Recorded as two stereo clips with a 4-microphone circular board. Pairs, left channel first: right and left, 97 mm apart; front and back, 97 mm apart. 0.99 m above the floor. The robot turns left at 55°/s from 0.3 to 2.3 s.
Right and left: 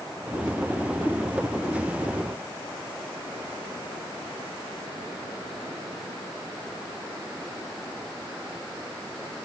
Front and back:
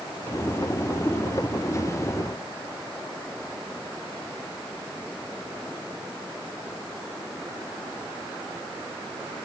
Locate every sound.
Only background noise.